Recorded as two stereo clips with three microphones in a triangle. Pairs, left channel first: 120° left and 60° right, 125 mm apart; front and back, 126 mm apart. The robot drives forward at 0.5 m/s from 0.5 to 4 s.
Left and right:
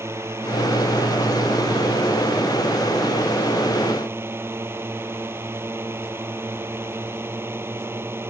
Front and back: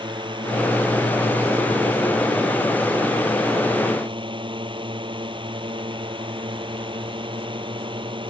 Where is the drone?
130° right.